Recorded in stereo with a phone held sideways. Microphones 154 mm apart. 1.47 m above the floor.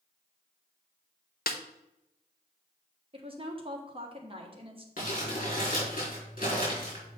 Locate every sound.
1.5 s a snare drum: 70° left (ahead or behind), 0.7 m
3.1 s a woman speaking: 35° right (ahead or behind), 1.4 m
5.0 s crumpling: 60° left (ahead or behind), 4 m